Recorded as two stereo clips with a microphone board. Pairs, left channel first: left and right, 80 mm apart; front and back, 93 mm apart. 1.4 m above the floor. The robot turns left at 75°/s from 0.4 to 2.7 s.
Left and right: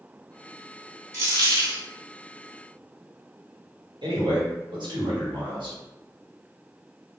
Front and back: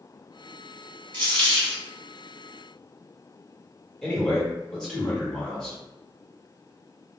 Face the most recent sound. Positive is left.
turn(degrees=-85)